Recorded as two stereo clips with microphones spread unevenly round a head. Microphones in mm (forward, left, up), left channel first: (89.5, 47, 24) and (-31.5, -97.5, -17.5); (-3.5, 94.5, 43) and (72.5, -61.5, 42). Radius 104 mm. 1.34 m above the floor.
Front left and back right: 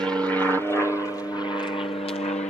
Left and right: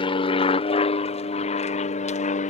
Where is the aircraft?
155° left; by 2.5 s 110° left.